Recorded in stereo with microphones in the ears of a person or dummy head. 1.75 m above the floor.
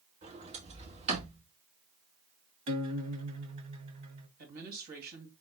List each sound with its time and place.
0.2 s a sliding door: 40° right (ahead or behind), 2.5 m
2.7 s a guitar: 40° right (ahead or behind), 1.0 m
4.4 s a woman speaking: 50° right (ahead or behind), 2.5 m